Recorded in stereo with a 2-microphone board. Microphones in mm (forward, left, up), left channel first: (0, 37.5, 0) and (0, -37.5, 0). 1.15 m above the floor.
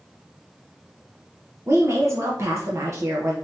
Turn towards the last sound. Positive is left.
turn(degrees=-40)  # may be behind; listen again after turning